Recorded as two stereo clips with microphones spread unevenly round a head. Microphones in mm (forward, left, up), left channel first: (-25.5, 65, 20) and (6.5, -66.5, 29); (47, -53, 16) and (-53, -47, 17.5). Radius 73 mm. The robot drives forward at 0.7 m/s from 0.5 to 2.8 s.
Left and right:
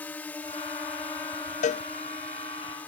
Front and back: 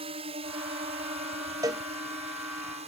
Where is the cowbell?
115° left; by 1.9 s 130° left.